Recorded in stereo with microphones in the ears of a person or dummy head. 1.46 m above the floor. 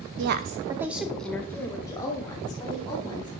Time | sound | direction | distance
0.2 | a woman speaking | 70° right (ahead or behind) | 0.8 m